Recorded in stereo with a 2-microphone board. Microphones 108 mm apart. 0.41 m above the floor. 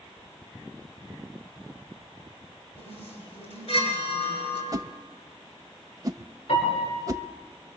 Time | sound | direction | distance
2.8 | a chime | 80° left | 7 m
4.7 | a whoosh | 35° right (ahead or behind) | 0.5 m
6.5 | a piano | 75° left (ahead or behind) | 6.5 m